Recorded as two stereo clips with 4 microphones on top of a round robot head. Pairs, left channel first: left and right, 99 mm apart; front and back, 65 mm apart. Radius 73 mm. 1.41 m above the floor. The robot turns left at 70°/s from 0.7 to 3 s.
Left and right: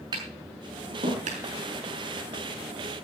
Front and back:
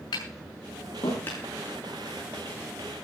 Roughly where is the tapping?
Ahead right.